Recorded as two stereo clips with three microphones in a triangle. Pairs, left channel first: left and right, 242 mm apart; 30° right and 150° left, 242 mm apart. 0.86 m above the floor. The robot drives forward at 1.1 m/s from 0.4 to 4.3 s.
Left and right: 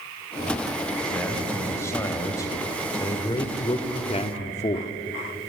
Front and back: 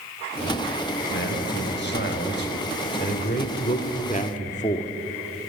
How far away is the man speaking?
About 5 m.